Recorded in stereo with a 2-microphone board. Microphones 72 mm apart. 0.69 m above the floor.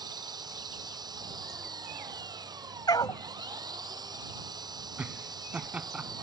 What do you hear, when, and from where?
0.0 s an engine running: 70° right (ahead or behind)
2.9 s a dog barking: 70° left (ahead or behind)
5.0 s laughter: 20° right (ahead or behind)